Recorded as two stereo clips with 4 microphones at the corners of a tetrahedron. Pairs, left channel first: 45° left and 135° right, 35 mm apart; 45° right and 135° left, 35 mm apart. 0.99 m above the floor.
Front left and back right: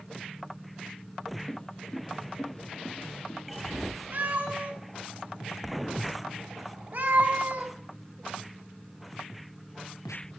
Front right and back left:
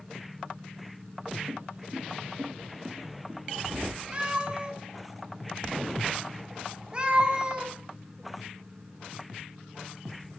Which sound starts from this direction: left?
Footsteps, at 1.5 s.